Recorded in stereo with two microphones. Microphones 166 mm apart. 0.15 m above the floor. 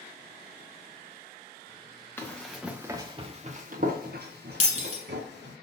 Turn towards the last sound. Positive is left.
turn(degrees=45)  # may be behind; listen again after turning